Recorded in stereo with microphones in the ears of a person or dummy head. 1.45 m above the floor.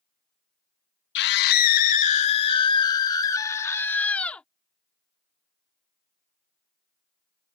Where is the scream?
60° left (ahead or behind); by 4.4 s 5° left (ahead or behind).